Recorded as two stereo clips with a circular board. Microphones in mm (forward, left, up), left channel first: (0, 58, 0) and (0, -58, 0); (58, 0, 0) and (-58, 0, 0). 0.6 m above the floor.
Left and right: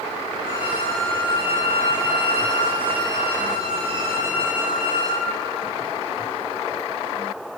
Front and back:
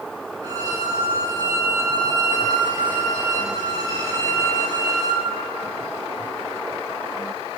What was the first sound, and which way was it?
A violin, 130° right.